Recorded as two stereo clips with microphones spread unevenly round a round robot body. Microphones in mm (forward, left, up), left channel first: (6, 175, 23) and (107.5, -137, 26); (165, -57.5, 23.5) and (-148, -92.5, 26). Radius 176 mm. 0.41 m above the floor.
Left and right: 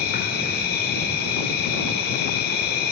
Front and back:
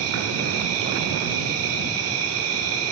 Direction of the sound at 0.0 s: 160° left.